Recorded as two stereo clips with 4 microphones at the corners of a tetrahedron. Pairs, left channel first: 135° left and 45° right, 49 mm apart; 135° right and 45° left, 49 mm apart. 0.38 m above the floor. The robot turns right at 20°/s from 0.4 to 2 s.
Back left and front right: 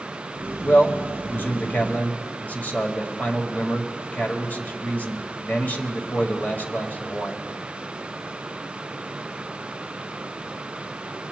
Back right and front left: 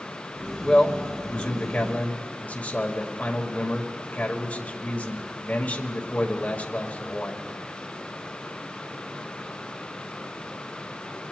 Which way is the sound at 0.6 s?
150° left.